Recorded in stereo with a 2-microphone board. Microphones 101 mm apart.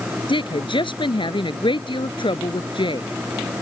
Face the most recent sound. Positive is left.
turn(degrees=55)  # may be behind; listen again after turning